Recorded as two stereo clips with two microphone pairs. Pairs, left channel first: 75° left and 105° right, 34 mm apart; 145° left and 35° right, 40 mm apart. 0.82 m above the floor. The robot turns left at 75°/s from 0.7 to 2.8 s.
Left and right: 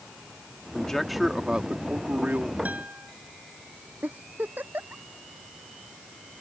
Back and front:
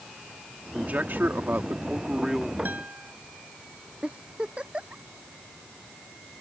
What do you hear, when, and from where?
0.8 s a man speaking: 10° left; by 2.5 s 125° right
2.6 s a guitar: 65° right; by 3.1 s 75° right
4.0 s a giggle: 90° right